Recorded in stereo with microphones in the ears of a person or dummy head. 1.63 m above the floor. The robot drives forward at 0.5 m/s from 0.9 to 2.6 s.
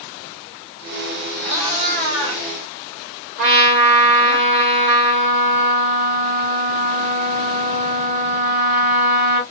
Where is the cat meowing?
40° right (ahead or behind), 1.3 m; by 4.4 s 35° right (ahead or behind), 1.6 m.